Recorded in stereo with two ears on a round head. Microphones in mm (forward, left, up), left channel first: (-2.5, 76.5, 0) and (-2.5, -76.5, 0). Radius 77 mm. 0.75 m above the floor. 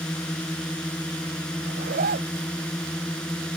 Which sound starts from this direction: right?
A zipper, at 1.6 s.